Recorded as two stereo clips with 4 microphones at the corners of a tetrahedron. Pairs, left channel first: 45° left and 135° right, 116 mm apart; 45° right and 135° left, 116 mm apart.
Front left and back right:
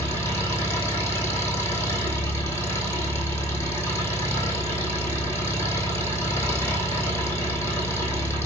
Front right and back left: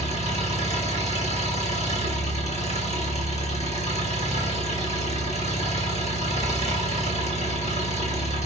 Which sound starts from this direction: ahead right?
An engine running, at 0.0 s.